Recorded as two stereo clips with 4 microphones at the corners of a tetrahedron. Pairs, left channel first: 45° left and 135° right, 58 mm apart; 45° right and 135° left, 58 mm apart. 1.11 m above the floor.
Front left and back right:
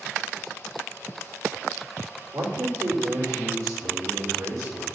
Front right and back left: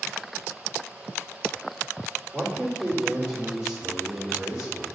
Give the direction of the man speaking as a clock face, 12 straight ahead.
5 o'clock.